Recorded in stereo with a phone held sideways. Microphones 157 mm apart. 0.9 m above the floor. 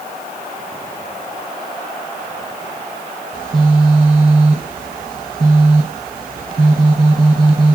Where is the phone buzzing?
60° right (ahead or behind), 1.1 m.